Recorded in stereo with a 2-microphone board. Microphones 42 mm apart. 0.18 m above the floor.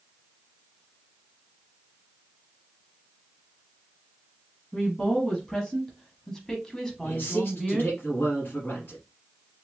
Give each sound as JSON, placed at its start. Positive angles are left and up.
{"t": 4.7, "sound": "a woman speaking", "side_deg": 15, "distance_m": 1.3}
{"t": 7.0, "sound": "a man speaking", "side_deg": 50, "distance_m": 1.6}